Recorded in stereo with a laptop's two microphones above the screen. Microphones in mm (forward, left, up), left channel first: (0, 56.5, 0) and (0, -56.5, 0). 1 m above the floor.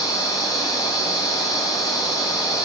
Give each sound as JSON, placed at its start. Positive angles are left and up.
{"t": 0.0, "sound": "a machine running", "side_deg": 35, "distance_m": 2.5}